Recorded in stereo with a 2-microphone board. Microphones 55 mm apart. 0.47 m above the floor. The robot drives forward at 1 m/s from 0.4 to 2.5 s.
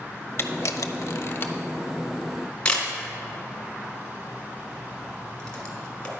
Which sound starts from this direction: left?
A camera shutter, at 0.4 s.